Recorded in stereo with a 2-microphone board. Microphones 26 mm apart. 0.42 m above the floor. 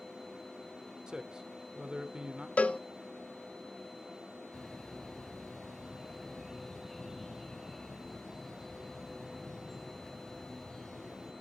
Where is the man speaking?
30° right (ahead or behind), 0.9 m.